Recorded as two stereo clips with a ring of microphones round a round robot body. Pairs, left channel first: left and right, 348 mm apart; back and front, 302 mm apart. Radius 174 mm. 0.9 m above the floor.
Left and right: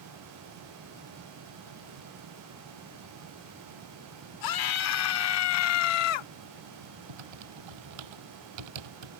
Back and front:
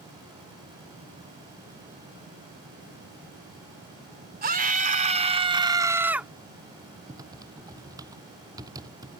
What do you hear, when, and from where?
4.4 s a scream: 60° left; by 6.3 s 90° left
7.1 s typing on a keyboard: 80° right